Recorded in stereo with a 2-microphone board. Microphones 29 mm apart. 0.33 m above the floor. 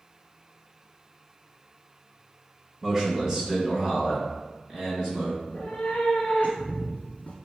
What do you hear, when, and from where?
2.8 s a man speaking: 15° right (ahead or behind), 1.2 m; by 5.3 s 10° right (ahead or behind), 2.5 m
5.4 s a cat meowing: 60° left (ahead or behind), 0.9 m